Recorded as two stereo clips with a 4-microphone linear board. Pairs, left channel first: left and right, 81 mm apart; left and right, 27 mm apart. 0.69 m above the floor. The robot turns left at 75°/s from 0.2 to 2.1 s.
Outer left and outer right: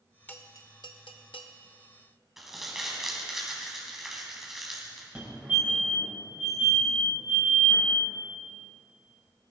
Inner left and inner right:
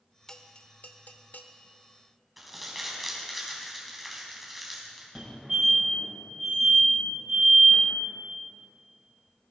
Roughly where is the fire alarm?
Centre.